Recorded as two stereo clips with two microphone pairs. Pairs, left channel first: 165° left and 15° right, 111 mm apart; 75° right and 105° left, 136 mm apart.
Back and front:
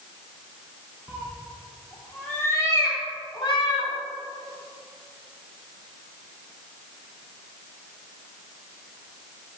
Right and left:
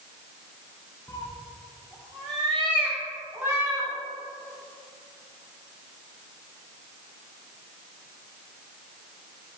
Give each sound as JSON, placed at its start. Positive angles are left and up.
{"t": 1.1, "sound": "a cat meowing", "azimuth_deg": -50, "distance_m": 1.3}